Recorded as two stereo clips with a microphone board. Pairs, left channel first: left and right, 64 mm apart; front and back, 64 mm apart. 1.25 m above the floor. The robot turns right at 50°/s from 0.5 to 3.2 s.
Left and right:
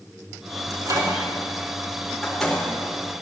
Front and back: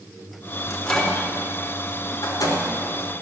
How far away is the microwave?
About 3.5 m.